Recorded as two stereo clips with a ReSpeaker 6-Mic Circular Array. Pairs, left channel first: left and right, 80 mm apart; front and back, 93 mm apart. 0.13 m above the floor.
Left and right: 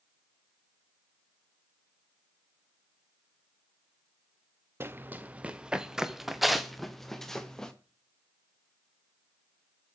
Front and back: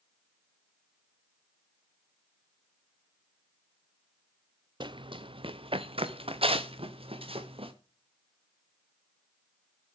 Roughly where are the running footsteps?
Behind right.